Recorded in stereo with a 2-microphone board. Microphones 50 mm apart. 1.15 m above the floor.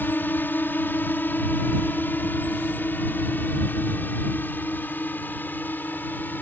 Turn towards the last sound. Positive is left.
turn(degrees=35)  # may be behind; listen again after turning